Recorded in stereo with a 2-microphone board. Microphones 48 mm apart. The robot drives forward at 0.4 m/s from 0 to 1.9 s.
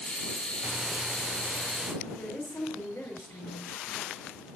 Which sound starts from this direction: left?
A woman speaking, at 2.0 s.